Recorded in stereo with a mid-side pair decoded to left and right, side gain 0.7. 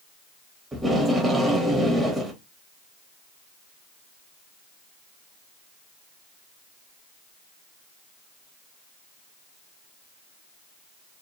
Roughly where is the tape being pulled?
Ahead.